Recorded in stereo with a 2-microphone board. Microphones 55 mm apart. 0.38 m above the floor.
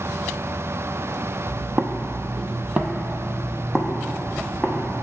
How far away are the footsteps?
About 0.6 m.